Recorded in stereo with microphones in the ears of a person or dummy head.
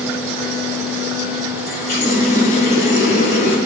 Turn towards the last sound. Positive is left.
turn(degrees=55)  # may be behind; listen again after turning